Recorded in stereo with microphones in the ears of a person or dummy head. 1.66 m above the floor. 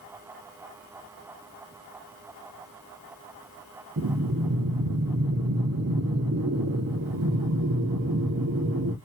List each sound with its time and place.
4.0 s breathing: 65° right (ahead or behind), 0.8 m